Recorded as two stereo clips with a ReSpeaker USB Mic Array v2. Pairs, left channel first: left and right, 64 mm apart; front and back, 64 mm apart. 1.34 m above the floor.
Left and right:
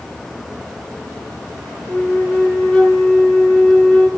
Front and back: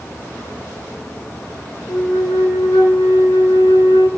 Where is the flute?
5° left, 5.5 m.